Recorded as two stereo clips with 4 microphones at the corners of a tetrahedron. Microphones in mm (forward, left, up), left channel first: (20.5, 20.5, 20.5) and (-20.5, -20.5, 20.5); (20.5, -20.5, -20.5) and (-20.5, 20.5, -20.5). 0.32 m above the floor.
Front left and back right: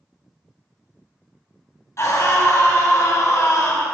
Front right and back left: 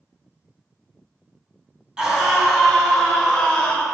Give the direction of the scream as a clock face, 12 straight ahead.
10 o'clock.